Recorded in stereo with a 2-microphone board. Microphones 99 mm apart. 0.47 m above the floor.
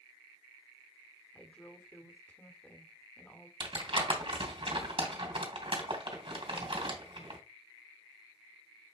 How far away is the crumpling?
About 2.5 m.